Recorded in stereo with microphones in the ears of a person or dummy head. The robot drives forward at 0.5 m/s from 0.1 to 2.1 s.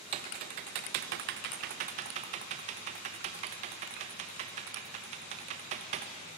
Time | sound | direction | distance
0.1 | typing on a keyboard | 40° right (ahead or behind) | 0.9 m